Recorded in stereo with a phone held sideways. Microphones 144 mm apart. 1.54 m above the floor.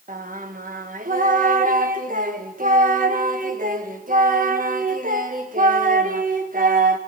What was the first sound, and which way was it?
Singing, 70° right (ahead or behind).